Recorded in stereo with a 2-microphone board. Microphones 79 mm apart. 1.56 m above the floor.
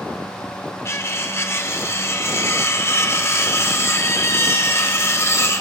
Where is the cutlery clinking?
30° left (ahead or behind), 0.7 m.